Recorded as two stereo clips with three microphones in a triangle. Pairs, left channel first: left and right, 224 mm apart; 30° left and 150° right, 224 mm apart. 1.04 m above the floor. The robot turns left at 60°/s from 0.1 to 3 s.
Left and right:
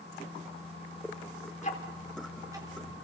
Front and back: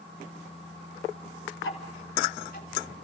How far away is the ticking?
About 3.5 m.